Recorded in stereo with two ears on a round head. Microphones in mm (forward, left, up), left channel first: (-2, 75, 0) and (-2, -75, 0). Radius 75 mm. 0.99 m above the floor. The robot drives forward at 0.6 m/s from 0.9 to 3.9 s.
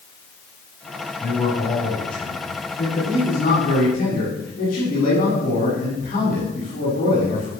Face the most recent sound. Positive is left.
turn(degrees=50)  # may be behind; listen again after turning